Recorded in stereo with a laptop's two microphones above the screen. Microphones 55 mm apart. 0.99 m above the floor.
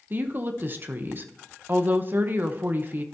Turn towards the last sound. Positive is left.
turn(degrees=-35)  # may be behind; listen again after turning